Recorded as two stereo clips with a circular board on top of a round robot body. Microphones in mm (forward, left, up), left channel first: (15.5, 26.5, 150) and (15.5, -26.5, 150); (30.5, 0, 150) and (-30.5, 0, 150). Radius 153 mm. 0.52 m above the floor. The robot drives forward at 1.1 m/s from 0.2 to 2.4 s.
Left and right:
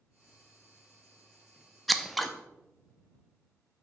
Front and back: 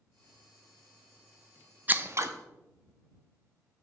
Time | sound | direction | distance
1.9 | scissors | 175° left | 0.7 m